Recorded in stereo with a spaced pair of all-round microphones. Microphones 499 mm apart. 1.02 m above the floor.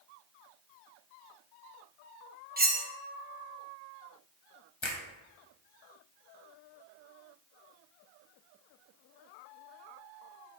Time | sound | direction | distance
2.6 | cutlery clinking | 20° right (ahead or behind) | 0.6 m
4.8 | a finger snap | 65° left (ahead or behind) | 0.9 m